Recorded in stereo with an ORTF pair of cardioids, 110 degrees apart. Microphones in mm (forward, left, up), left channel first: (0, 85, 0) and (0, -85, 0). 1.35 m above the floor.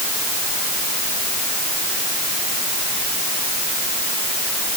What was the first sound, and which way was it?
Only background noise.